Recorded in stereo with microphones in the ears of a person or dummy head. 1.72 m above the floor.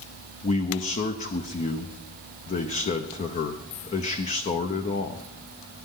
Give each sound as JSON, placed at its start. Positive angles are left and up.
{"t": 0.4, "sound": "a man speaking", "side_deg": 30, "distance_m": 0.9}